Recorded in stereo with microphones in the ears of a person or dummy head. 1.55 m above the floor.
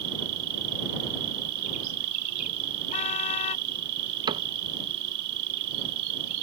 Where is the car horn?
45° left (ahead or behind).